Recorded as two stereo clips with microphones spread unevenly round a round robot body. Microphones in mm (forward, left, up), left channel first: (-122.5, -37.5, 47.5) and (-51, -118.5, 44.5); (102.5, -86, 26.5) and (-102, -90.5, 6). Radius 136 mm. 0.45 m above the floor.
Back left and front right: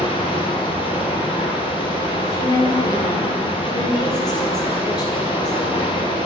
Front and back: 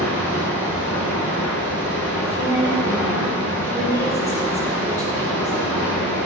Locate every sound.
0.0 s running water: 160° left, 2.5 m
2.2 s a woman speaking: 125° left, 1.3 m